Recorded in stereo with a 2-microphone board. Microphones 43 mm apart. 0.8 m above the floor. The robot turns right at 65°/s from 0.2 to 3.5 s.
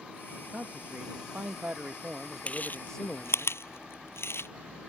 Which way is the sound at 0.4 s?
145° right.